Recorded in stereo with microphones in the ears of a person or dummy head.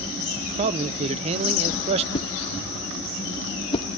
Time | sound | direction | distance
0.6 | a man speaking | 35° right (ahead or behind) | 0.6 m
2.1 | a whoosh | 25° left (ahead or behind) | 0.9 m